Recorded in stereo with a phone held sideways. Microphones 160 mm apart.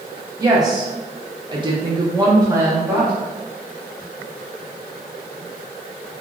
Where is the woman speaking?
20° right (ahead or behind), 1.0 m; by 3.1 s 15° right (ahead or behind), 0.8 m.